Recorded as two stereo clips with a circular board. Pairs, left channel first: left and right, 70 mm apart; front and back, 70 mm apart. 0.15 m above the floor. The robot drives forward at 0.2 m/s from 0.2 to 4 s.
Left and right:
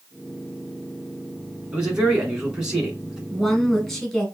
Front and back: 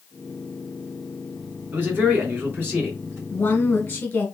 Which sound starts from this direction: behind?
A man speaking, at 1.7 s.